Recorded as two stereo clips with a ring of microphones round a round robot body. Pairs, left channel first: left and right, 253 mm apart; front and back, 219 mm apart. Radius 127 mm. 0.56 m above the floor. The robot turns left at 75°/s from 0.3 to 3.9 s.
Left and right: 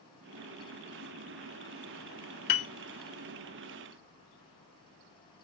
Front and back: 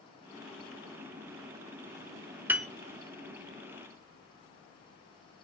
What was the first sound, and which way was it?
A piano, 100° left.